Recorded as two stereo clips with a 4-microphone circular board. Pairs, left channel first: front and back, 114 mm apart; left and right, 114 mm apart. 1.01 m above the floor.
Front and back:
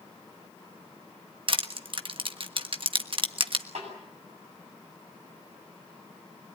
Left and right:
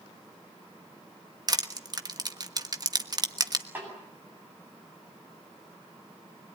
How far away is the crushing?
About 1.2 m.